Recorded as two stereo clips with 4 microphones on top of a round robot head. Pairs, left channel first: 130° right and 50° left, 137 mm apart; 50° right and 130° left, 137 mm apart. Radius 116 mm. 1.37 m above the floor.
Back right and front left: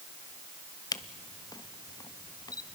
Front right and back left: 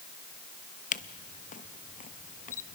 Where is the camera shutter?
70° right, 0.6 m.